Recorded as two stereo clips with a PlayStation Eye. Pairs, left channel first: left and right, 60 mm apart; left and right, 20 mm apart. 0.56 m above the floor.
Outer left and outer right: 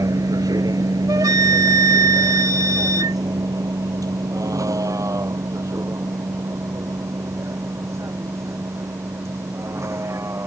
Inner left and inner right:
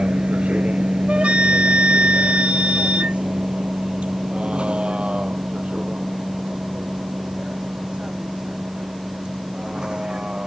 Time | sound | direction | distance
0.0 | a vehicle | 70° right (ahead or behind) | ?
1.1 | a flute | 70° right (ahead or behind) | ?